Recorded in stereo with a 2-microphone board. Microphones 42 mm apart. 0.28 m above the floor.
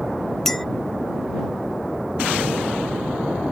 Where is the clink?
10° left (ahead or behind).